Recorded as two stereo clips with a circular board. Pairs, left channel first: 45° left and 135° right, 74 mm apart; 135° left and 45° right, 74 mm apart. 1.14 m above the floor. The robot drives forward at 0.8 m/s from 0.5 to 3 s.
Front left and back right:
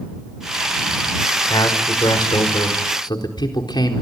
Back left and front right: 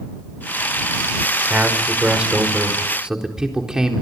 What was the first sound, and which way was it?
A man speaking, 30° left.